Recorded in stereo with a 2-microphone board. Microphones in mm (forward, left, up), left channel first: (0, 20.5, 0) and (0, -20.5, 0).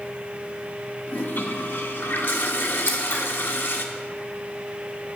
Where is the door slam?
No door slam in this recording.